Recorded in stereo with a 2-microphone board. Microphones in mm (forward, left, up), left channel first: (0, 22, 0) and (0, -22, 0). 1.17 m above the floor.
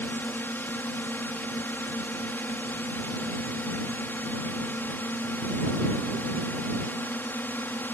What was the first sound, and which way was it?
A drone, 50° left (ahead or behind).